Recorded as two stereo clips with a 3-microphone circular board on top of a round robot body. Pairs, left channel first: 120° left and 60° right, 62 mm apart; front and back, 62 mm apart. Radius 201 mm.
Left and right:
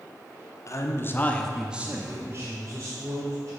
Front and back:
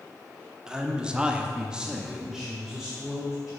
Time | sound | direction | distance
0.7 | a man speaking | 105° left | 1.6 m